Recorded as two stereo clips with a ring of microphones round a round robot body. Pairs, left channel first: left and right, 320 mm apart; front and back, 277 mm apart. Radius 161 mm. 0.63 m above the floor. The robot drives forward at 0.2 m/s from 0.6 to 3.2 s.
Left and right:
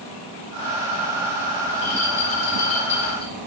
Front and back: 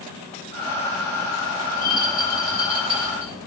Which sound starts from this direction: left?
A rattle, at 1.7 s.